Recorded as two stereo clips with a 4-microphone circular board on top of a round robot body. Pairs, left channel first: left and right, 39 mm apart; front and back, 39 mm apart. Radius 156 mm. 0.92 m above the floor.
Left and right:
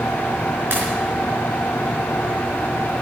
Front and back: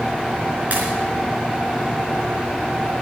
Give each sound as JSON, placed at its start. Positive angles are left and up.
{"t": 0.7, "sound": "a pop", "azimuth_deg": -125, "distance_m": 4.0}